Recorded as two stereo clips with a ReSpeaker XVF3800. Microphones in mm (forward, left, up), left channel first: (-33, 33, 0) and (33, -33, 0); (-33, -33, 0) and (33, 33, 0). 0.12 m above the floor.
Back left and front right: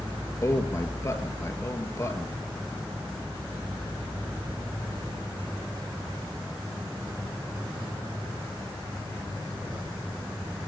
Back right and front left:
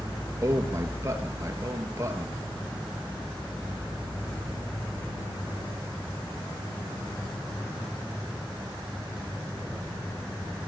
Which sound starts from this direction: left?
A man speaking, at 0.4 s.